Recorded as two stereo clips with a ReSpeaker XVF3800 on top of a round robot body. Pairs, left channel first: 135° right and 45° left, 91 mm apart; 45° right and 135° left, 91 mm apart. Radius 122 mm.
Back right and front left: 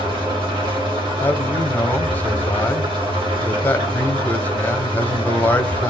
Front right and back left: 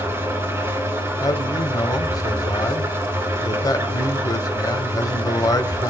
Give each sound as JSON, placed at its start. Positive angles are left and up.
{"t": 0.0, "sound": "an engine running", "azimuth_deg": 75, "distance_m": 3.5}
{"t": 1.2, "sound": "a man speaking", "azimuth_deg": -70, "distance_m": 1.4}